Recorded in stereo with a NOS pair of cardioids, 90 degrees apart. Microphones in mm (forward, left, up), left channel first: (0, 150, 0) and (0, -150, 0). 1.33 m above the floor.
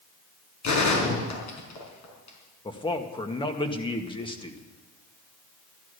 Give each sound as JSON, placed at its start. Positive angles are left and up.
{"t": 0.6, "sound": "a gunshot", "azimuth_deg": 70, "distance_m": 5.0}
{"t": 2.6, "sound": "a man speaking", "azimuth_deg": 15, "distance_m": 1.9}